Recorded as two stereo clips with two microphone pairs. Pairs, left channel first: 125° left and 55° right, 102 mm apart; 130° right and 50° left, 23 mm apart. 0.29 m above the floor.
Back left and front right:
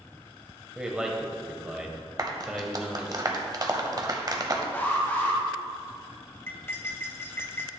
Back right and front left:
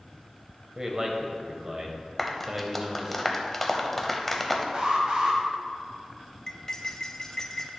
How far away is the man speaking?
About 1.0 m.